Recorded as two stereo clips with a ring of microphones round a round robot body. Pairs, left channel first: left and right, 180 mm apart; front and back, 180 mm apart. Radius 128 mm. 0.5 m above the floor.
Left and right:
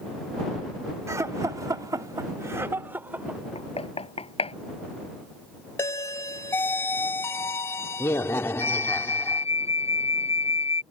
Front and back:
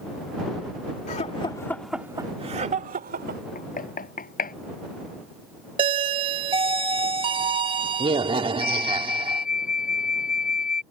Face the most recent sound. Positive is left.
turn(degrees=35)